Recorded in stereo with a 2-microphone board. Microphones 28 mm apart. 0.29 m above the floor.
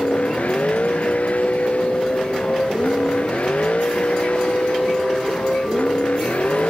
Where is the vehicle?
60° left (ahead or behind).